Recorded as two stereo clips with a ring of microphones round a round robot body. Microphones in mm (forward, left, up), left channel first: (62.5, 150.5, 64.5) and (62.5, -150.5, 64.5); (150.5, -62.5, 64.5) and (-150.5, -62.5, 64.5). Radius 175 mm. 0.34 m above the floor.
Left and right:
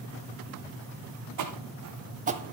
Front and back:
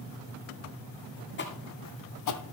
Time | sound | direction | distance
1.4 | footsteps | 55° right | 1.2 m